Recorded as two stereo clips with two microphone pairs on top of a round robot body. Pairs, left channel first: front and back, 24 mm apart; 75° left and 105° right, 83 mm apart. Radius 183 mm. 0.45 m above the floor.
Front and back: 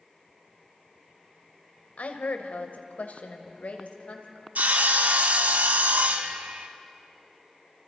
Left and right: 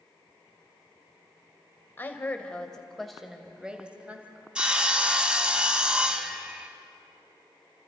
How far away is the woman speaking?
About 2.5 m.